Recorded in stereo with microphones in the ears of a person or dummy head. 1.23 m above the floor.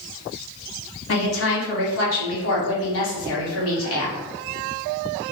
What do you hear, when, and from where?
1.1 s a woman speaking: 75° left (ahead or behind), 1.2 m